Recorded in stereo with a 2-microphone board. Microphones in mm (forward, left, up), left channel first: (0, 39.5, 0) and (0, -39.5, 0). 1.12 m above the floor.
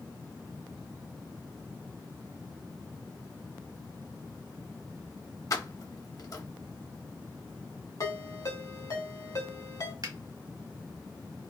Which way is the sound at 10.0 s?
55° right (ahead or behind).